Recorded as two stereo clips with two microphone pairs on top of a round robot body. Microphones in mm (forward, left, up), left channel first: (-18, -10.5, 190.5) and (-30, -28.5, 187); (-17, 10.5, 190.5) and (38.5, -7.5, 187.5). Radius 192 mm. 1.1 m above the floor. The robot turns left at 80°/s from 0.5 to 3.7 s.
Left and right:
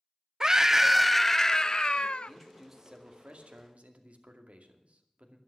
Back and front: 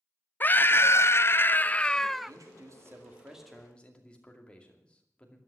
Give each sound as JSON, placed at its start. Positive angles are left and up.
{"t": 0.4, "sound": "a scream", "azimuth_deg": -155, "distance_m": 0.9}
{"t": 2.3, "sound": "a man speaking", "azimuth_deg": -10, "distance_m": 2.5}